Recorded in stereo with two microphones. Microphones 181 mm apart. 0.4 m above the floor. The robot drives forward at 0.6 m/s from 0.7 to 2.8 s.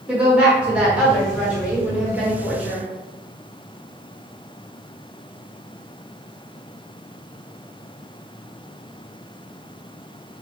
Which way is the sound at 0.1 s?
5° right (ahead or behind).